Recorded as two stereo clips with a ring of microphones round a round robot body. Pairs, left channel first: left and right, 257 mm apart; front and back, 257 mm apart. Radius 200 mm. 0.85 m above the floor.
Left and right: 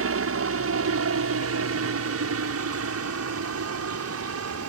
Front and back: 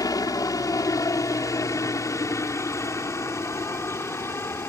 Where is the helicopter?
75° right; by 4.7 s 80° right.